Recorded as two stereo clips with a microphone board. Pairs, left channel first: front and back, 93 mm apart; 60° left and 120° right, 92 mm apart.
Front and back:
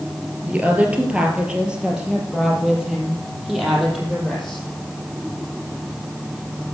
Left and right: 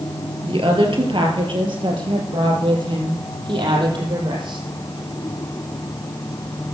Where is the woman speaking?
110° right, 3 m; by 4.6 s 90° right, 5.5 m.